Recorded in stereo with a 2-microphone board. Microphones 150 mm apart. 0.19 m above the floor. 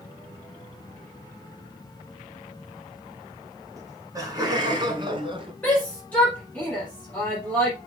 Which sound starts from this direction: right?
Laughter, at 3.8 s.